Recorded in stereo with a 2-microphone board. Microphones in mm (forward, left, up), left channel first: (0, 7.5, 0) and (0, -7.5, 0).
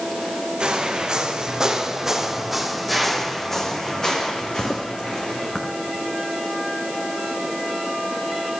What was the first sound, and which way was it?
Footsteps, 50° right (ahead or behind).